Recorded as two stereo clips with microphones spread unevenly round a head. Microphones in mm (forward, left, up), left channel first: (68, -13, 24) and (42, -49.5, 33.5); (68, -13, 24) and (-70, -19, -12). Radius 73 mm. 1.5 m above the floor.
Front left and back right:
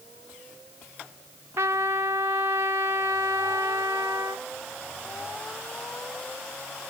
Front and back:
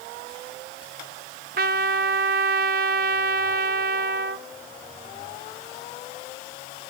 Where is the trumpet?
160° right, 0.8 m.